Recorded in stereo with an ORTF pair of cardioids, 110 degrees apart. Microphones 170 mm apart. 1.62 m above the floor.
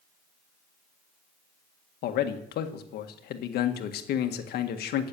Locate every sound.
2.0 s a man speaking: 70° left, 1.7 m